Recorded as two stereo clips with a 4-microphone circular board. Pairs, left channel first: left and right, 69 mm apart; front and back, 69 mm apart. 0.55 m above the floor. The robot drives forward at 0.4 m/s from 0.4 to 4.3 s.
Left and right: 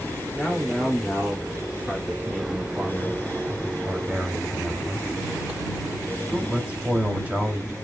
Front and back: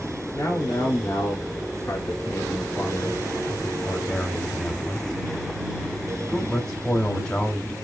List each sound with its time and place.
0.3 s a man speaking: 15° right, 2.0 m; by 7.7 s 75° right, 1.1 m